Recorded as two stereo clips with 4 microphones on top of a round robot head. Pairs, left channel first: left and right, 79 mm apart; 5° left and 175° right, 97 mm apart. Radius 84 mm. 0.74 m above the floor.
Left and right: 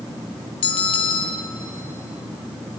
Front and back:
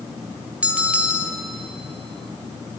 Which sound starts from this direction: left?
A bell, at 0.6 s.